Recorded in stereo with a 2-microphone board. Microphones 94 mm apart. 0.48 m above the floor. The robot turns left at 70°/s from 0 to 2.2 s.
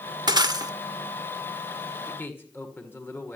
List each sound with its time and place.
0.3 s breaking glass: 85° right, 0.7 m; by 0.7 s 115° right, 0.7 m
2.1 s a man speaking: 15° left (ahead or behind), 1.9 m; by 3.4 s 25° left (ahead or behind), 1.9 m